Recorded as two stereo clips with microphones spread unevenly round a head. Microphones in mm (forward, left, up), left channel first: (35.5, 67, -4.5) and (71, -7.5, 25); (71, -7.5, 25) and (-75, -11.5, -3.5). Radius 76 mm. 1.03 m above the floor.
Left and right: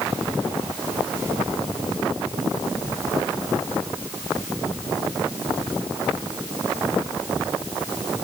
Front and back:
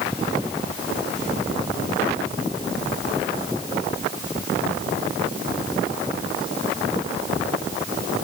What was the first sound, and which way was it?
Only background noise.